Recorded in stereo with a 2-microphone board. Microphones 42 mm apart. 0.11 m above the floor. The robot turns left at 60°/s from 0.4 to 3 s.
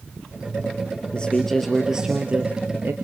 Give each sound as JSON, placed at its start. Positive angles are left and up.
{"t": 1.1, "sound": "a man speaking", "azimuth_deg": 35, "distance_m": 2.0}